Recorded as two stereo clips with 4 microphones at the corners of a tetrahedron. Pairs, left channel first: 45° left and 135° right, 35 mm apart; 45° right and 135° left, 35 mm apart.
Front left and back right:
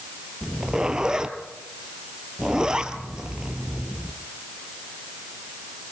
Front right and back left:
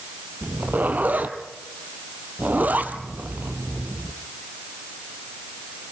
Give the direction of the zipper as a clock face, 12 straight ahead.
7 o'clock.